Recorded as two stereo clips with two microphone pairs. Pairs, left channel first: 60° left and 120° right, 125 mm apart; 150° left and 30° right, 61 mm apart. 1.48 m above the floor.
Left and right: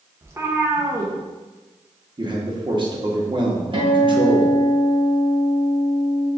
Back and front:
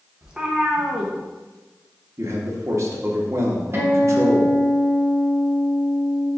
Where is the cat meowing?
80° right, 0.7 m.